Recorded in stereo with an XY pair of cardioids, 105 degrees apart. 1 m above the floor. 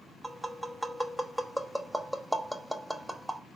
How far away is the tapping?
About 1.0 m.